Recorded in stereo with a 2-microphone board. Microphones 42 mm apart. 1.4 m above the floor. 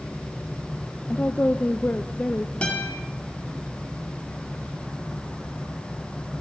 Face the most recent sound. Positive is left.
turn(degrees=30)  # may be behind; listen again after turning